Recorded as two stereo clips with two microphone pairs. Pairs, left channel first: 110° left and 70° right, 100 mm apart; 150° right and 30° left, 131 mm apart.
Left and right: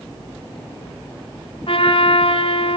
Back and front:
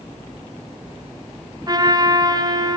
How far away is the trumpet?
About 2 m.